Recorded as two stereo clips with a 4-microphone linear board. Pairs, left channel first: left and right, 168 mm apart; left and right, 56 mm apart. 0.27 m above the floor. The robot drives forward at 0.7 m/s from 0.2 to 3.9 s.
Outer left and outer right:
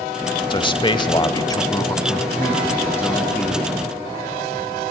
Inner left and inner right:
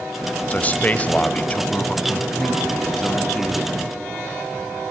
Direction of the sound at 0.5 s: 30° left (ahead or behind).